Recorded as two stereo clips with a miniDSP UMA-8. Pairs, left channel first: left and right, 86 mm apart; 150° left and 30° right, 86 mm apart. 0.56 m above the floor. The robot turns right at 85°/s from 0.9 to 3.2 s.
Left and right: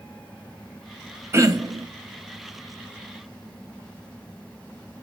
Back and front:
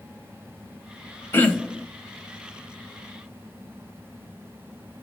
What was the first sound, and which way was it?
Throat clearing, 150° right.